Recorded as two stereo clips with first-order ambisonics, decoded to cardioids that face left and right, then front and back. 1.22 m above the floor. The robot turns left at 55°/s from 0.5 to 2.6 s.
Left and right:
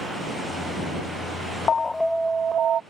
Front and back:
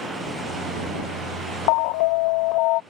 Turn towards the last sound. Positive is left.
turn(degrees=-30)